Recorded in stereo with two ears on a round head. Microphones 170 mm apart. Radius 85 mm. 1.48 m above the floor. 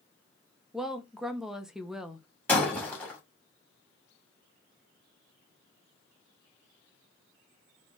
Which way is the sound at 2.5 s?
10° left (ahead or behind).